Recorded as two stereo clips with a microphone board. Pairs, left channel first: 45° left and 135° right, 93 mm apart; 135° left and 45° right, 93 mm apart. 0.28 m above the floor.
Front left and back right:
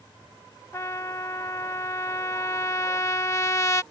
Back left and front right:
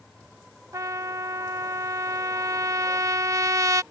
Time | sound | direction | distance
0.7 | a trumpet | straight ahead | ?